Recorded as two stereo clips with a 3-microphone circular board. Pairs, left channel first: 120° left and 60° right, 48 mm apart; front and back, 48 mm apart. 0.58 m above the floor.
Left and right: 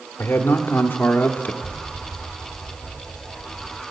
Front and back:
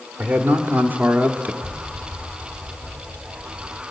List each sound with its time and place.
0.2 s a man speaking: 140° left, 1.6 m
1.6 s an explosion: 145° right, 1.2 m